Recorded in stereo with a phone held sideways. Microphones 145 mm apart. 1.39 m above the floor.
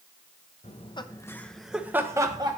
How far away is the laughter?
About 0.7 m.